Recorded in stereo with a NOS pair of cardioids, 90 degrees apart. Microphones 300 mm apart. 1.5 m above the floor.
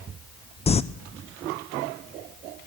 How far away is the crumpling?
About 0.5 m.